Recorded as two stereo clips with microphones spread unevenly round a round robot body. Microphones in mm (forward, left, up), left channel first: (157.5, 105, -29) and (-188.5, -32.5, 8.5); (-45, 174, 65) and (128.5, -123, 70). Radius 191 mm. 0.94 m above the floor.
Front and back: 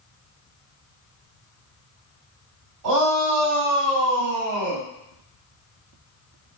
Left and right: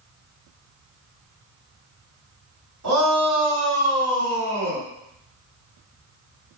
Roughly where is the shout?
Right.